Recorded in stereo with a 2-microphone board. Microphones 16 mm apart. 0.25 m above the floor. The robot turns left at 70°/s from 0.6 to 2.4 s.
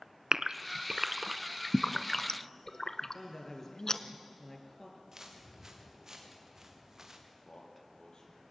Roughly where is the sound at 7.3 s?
Left.